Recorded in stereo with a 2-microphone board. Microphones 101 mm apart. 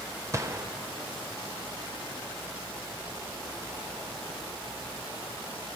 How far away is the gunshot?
About 0.7 m.